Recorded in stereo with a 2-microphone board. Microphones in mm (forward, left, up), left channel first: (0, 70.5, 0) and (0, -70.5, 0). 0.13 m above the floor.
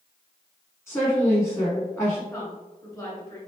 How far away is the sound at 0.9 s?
About 1.1 m.